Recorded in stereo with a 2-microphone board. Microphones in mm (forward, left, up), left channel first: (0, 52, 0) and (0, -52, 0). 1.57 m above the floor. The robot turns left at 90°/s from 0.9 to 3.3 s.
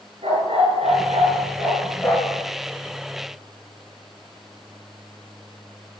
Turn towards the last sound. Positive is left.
turn(degrees=55)